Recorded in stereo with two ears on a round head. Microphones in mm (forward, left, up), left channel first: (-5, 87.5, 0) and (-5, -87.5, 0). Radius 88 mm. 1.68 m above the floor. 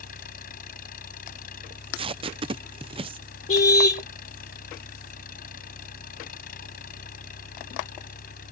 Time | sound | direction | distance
0.0 | an engine running | 50° left (ahead or behind) | ?
1.7 | tape being pulled | 30° right (ahead or behind) | ?
3.5 | a car horn | 40° left (ahead or behind) | ?